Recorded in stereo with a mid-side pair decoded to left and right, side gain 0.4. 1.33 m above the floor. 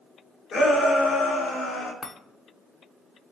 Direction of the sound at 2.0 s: 40° left.